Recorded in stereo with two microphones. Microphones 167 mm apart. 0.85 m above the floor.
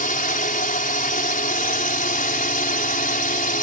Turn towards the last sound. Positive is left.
turn(degrees=55)  # may be behind; listen again after turning